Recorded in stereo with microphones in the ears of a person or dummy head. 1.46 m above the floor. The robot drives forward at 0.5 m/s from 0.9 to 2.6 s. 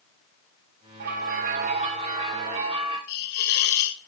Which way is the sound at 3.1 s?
55° left (ahead or behind).